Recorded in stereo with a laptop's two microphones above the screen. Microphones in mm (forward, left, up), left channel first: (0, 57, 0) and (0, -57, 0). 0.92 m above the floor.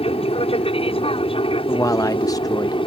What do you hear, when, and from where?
0.0 s an aircraft: 60° left (ahead or behind); by 2.9 s 50° left (ahead or behind)
1.7 s a man speaking: 30° left (ahead or behind)